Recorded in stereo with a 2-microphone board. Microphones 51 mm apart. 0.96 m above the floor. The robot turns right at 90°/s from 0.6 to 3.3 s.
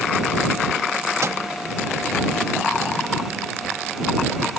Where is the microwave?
65° right (ahead or behind); by 1.4 s 75° right (ahead or behind).